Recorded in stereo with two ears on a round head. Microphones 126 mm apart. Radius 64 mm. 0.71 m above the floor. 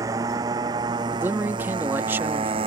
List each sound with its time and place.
0.0 s a motorcycle: 20° right (ahead or behind); by 2.7 s 35° right (ahead or behind)
1.1 s a man speaking: 15° right (ahead or behind)